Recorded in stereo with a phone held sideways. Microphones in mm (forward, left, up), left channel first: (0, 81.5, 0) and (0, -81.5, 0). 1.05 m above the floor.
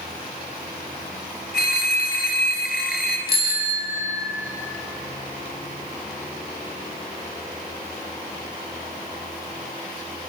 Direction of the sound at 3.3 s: 75° left (ahead or behind).